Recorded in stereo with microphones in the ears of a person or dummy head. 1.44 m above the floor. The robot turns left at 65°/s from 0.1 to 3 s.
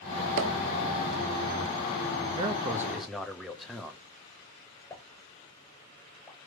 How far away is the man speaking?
About 0.8 m.